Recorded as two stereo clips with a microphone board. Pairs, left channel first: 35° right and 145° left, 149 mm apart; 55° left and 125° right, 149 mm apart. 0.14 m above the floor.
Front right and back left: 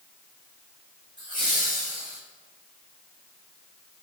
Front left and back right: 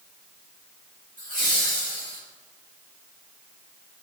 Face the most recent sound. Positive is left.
turn(degrees=-150)